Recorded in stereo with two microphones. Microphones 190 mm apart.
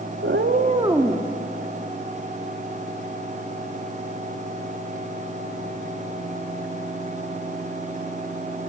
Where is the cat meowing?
75° right (ahead or behind), 0.8 m; by 1.3 s 5° left (ahead or behind), 1.0 m.